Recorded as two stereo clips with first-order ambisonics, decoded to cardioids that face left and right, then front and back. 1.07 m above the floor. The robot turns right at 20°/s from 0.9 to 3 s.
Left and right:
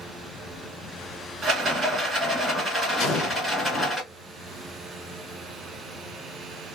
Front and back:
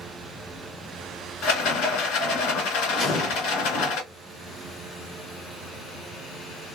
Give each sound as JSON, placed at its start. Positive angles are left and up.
{"t": 1.4, "sound": "a rattle", "azimuth_deg": -30, "distance_m": 1.7}
{"t": 3.0, "sound": "an explosion", "azimuth_deg": 65, "distance_m": 1.3}